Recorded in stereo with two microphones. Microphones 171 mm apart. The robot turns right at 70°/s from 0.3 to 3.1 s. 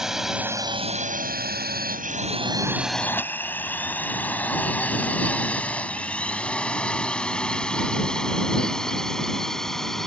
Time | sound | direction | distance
0.0 | a drone | centre (ahead or behind) | ?